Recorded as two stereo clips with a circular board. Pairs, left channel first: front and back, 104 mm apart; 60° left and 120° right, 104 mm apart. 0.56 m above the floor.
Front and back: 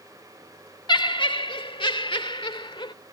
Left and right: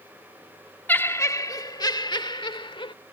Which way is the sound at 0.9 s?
5° right.